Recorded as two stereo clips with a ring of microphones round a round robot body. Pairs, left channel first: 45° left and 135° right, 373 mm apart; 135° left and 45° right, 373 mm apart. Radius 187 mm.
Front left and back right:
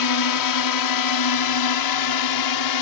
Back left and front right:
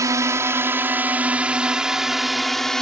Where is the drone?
35° left; by 2.8 s 45° left.